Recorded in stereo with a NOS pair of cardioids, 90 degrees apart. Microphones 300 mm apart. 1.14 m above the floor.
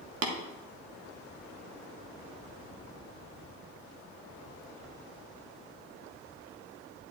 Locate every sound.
0.2 s tapping: 55° right, 1.6 m